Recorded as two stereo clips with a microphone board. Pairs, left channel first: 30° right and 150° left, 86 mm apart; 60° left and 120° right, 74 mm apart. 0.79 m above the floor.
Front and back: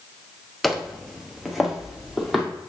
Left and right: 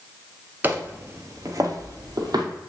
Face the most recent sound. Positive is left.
turn(degrees=-120)